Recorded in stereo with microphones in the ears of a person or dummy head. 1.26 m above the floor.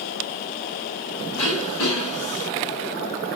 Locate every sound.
1.4 s throat clearing: 25° left (ahead or behind), 1.7 m